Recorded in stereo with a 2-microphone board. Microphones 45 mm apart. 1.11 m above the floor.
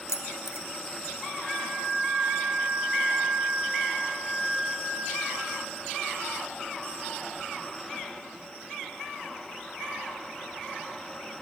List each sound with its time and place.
0.1 s keys jangling: 80° left, 0.6 m
1.4 s a flute: 10° left (ahead or behind), 4 m